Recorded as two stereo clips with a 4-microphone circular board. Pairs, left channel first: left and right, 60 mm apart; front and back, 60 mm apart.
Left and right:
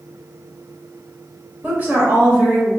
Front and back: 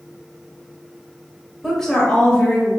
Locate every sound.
1.6 s a woman speaking: 85° right, 1.1 m; by 2.7 s 40° right, 1.3 m